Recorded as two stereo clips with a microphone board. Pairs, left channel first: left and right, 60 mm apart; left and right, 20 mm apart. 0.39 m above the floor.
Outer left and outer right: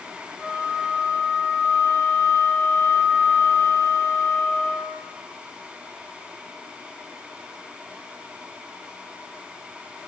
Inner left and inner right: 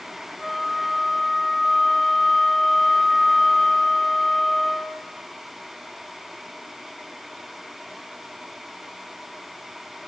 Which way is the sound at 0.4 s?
10° left (ahead or behind).